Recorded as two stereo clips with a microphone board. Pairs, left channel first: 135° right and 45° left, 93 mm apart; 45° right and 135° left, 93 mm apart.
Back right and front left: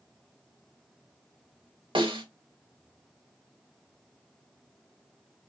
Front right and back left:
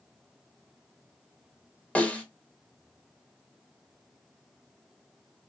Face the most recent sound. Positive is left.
turn(degrees=30)